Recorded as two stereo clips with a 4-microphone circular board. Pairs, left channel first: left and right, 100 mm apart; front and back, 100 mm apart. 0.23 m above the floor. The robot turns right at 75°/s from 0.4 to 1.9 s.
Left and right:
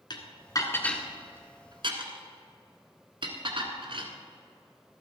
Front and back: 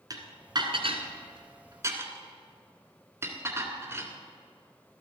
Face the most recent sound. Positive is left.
turn(degrees=-120)